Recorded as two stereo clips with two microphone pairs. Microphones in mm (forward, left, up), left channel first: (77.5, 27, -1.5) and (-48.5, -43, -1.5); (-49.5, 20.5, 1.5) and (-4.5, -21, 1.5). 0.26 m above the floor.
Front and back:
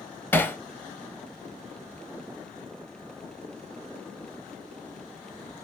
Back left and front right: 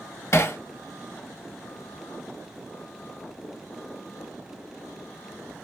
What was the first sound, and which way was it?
Hammering, 100° left.